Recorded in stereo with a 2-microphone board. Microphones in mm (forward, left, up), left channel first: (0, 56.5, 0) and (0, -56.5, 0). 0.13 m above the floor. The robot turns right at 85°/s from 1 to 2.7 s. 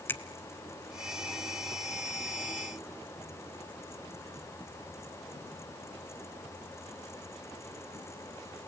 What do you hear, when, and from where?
0.1 s a finger snap: 20° left (ahead or behind), 1.0 m